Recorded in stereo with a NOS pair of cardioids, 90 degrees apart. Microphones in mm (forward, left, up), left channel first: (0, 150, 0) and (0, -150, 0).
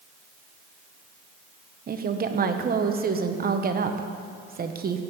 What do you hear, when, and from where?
1.9 s a woman speaking: 35° right, 0.8 m